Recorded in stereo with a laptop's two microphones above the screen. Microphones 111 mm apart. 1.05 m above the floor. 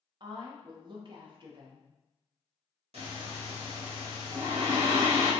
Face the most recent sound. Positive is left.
turn(degrees=-70)  # may be behind; listen again after turning